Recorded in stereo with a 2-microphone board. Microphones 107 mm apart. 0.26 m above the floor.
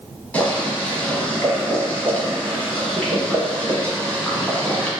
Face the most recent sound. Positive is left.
turn(degrees=15)  # may be behind; listen again after turning